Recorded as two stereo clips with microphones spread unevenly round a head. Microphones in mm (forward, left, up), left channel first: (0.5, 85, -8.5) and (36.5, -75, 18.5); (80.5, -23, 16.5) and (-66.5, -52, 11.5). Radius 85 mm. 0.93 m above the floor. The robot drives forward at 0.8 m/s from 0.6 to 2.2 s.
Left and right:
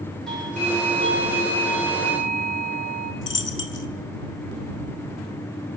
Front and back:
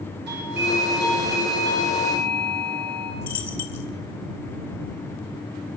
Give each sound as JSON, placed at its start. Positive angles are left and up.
{"t": 0.3, "sound": "a doorbell", "azimuth_deg": -170, "distance_m": 6.0}
{"t": 3.2, "sound": "a dropped coin", "azimuth_deg": 90, "distance_m": 2.5}